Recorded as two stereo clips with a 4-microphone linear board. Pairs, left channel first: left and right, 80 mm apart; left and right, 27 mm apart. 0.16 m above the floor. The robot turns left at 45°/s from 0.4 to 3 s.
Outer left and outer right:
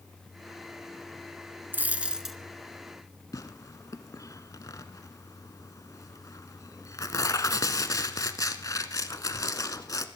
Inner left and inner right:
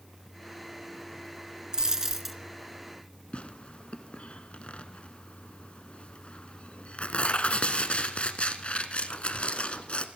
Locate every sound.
1.7 s a dropped coin: 25° right (ahead or behind), 1.0 m; by 2.4 s centre (ahead or behind), 1.0 m
3.3 s tearing paper: 45° left (ahead or behind), 1.0 m